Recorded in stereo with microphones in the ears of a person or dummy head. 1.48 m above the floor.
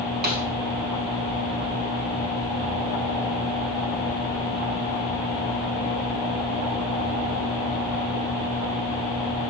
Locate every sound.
0.2 s a snare drum: 50° right (ahead or behind), 1.1 m